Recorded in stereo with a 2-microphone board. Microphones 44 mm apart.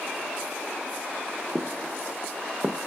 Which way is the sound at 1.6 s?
10° left (ahead or behind).